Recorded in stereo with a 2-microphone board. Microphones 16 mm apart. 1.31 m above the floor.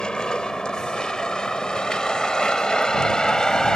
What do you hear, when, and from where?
0.0 s a vehicle: 75° left (ahead or behind); by 3.8 s 55° left (ahead or behind)